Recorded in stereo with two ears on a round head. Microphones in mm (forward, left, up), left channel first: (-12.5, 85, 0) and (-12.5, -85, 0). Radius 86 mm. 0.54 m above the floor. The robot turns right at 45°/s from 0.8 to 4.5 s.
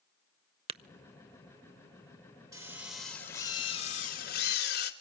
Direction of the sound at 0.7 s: 30° right (ahead or behind).